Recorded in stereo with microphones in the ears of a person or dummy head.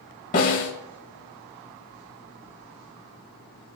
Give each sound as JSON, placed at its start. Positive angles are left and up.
{"t": 0.3, "sound": "a snare drum", "side_deg": 45, "distance_m": 2.0}